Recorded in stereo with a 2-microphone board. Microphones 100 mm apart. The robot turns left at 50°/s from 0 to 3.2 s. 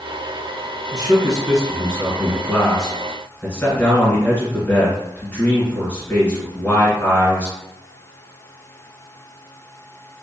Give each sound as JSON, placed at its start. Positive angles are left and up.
{"t": 0.9, "sound": "a man speaking", "azimuth_deg": -95, "distance_m": 1.9}